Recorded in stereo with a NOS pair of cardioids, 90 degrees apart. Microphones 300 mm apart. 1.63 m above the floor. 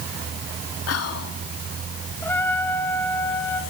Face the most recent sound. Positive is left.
turn(degrees=5)